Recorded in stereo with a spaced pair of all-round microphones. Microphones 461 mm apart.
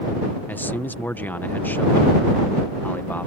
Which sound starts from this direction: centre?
A man speaking, at 0.5 s.